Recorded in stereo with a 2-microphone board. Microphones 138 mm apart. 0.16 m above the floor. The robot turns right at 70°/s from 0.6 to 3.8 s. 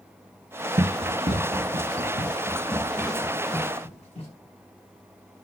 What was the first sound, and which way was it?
Running footsteps, 50° right (ahead or behind).